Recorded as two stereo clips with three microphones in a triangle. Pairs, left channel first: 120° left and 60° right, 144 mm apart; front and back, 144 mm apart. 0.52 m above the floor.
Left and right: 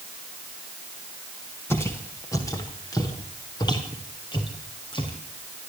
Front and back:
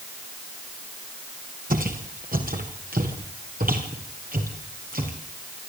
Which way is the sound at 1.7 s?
165° right.